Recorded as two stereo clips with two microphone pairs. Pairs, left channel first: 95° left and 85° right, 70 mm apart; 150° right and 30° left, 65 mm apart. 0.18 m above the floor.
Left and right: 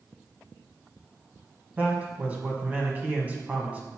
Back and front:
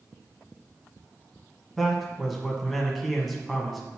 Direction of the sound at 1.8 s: 65° right.